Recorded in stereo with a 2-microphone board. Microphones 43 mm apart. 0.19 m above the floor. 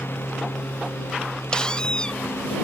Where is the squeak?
20° left (ahead or behind).